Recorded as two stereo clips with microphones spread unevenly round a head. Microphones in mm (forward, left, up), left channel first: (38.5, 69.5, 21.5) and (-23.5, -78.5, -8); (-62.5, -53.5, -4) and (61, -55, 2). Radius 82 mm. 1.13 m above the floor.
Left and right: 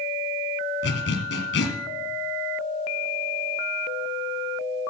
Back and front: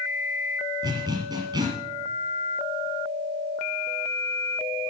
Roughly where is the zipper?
Ahead left.